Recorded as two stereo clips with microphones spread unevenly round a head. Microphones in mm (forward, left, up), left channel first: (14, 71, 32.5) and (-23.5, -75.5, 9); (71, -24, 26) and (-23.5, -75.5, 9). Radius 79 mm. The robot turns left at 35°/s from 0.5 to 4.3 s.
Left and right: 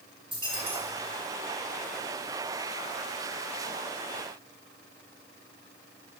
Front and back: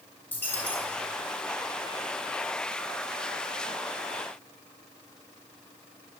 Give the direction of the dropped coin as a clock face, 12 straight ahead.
1 o'clock.